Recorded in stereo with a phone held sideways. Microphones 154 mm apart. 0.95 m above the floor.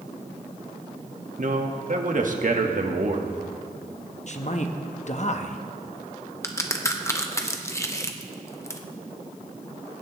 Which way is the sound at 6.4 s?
20° left (ahead or behind).